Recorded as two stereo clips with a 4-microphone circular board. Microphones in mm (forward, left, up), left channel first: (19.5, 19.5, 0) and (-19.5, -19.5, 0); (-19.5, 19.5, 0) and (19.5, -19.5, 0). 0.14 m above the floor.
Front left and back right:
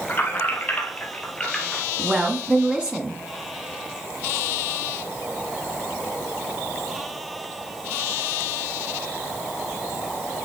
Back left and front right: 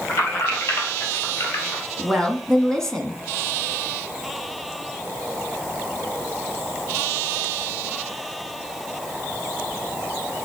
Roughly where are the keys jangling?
Left.